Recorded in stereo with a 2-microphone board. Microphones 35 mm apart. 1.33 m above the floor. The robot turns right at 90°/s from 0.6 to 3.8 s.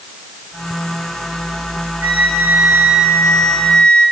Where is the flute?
125° right, 8.5 m; by 4.0 s 35° left, 8.5 m.